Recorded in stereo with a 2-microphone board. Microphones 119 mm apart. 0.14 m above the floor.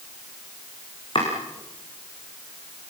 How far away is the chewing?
No chewing in this recording.